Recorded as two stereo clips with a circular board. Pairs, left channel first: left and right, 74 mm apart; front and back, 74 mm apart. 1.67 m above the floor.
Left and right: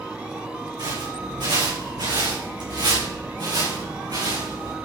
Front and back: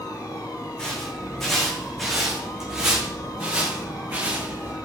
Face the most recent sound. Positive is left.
turn(degrees=-115)